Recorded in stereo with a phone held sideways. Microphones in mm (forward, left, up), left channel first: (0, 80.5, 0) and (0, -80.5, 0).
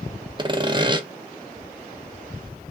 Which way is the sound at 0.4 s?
30° right (ahead or behind).